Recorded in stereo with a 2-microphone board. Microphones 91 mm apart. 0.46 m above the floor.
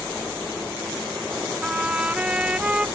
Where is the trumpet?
15° right (ahead or behind).